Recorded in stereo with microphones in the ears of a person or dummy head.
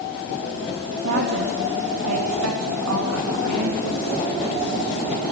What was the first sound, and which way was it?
A woman speaking, 90° right.